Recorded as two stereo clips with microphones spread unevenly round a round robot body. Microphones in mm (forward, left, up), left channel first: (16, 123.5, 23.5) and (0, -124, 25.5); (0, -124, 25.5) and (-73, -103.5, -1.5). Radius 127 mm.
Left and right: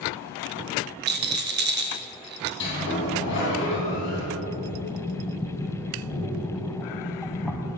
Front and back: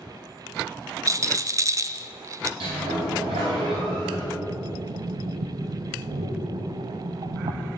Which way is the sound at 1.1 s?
145° right.